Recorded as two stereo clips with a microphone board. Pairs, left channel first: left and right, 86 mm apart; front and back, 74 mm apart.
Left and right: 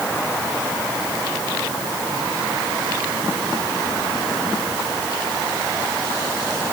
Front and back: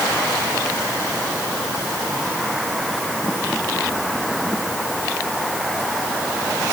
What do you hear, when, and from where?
Only background noise.